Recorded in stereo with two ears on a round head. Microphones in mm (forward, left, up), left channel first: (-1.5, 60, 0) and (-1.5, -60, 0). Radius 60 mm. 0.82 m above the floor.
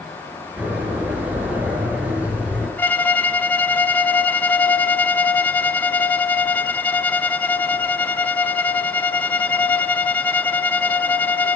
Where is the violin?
10° left (ahead or behind), 1.3 m.